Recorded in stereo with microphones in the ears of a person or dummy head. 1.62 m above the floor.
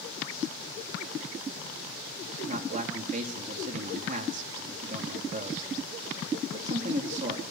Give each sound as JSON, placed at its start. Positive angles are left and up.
{"t": 2.5, "sound": "a man speaking", "side_deg": -40, "distance_m": 3.5}